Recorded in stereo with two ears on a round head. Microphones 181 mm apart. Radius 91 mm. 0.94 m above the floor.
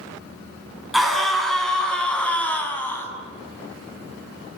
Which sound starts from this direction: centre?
A scream, at 0.9 s.